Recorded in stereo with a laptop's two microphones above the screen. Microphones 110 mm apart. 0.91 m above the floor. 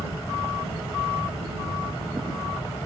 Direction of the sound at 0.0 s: 35° left (ahead or behind).